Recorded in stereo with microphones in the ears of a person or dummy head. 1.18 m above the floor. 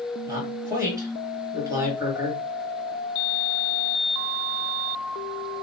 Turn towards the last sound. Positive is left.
turn(degrees=-15)  # may be behind; listen again after turning